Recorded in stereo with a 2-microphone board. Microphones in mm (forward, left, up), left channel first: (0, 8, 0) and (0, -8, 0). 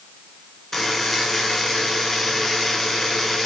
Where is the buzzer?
40° left (ahead or behind), 2.5 m.